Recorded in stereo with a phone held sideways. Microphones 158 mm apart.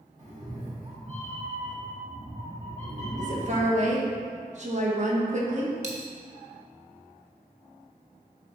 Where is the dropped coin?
45° right (ahead or behind), 1.1 m.